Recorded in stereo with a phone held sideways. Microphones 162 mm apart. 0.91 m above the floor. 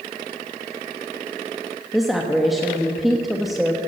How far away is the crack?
I don't hear a crack.